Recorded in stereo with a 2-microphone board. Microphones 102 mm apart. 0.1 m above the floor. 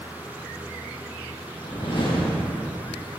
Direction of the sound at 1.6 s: 50° left (ahead or behind).